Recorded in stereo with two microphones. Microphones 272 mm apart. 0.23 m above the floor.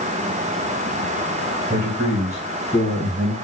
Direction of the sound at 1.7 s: 25° right (ahead or behind).